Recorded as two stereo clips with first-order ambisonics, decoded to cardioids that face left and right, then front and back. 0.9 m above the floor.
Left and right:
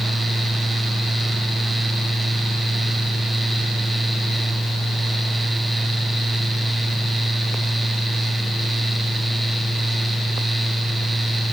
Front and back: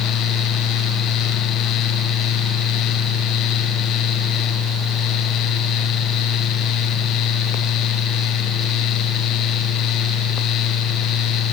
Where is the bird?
I don't hear a bird.